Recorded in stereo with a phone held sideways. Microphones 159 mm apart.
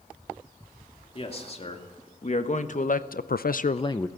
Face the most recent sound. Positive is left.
turn(degrees=15)  # may be behind; listen again after turning